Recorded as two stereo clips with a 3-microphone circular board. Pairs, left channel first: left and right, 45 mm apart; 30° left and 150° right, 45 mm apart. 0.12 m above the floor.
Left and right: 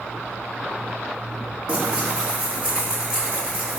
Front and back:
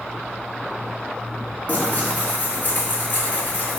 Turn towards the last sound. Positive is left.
turn(degrees=-10)